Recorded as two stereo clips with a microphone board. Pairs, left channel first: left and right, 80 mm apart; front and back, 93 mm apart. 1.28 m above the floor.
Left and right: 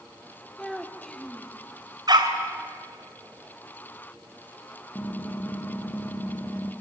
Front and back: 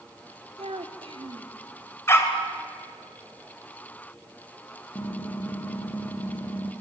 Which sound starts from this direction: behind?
A child speaking, at 0.6 s.